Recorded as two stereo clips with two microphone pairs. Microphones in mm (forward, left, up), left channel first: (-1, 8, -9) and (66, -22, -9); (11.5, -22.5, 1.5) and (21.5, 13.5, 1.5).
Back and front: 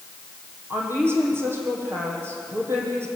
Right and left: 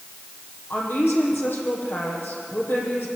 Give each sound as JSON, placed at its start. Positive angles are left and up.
{"t": 0.7, "sound": "a woman speaking", "azimuth_deg": -80, "distance_m": 6.0}